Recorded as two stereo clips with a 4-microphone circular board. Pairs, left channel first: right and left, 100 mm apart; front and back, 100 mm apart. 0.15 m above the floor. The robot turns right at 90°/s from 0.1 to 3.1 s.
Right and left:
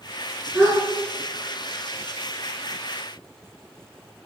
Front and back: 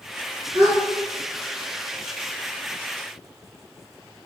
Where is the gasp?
175° left, 1.4 m; by 0.8 s 165° right, 1.4 m.